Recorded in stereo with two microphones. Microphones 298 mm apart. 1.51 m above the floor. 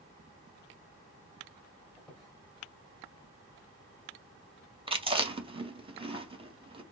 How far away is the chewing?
About 0.7 m.